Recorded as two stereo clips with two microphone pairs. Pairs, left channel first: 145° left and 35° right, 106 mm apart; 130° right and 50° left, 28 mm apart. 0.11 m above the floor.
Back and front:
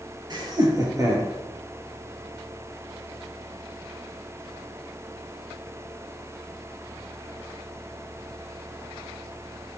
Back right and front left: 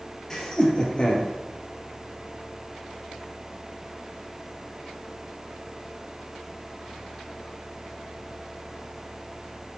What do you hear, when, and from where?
0.3 s laughter: 70° right, 2.5 m; by 1.3 s 95° right, 3.5 m